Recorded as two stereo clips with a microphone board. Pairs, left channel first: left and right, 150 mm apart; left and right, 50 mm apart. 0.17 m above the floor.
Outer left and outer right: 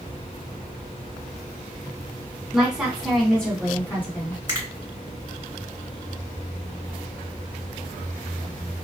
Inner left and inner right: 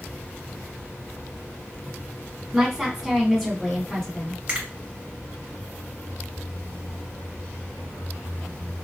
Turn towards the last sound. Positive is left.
turn(degrees=-25)  # may be behind; listen again after turning